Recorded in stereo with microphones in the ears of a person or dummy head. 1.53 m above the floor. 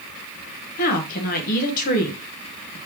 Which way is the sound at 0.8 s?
55° left (ahead or behind).